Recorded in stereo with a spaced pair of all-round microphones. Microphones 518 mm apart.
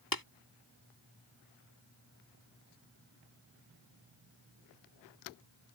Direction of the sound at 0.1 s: 40° left (ahead or behind).